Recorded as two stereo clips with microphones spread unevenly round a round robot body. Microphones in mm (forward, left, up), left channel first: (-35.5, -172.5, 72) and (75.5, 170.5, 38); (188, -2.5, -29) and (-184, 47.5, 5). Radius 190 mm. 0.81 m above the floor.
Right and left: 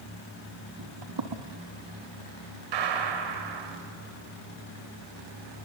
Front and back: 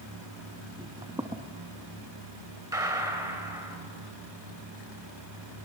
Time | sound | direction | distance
0.8 | footsteps | 100° left | 1.3 m
2.7 | a gunshot | 90° left | 2.5 m